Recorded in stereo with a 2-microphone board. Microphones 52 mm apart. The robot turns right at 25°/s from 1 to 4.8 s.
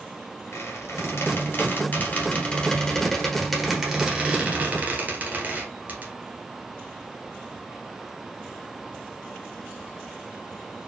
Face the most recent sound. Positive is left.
turn(degrees=-35)  # may be behind; listen again after turning